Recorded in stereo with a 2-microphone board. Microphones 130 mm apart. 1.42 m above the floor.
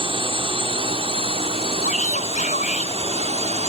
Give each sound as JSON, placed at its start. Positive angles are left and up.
{"t": 0.0, "sound": "a drone", "side_deg": -45}
{"t": 1.8, "sound": "a shout", "side_deg": 85}